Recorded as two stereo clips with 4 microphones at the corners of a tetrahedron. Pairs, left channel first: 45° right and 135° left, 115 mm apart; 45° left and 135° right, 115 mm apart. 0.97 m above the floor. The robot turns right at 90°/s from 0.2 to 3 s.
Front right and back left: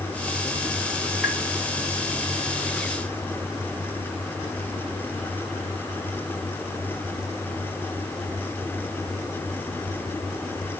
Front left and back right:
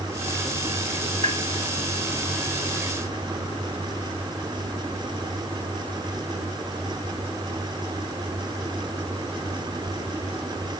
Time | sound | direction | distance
1.2 | tapping | 130° right | 2 m